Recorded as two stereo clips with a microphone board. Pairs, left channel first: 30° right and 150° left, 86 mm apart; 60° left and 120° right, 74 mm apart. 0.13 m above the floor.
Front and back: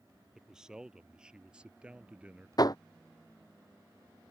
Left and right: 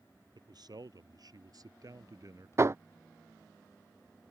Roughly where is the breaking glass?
I don't hear breaking glass.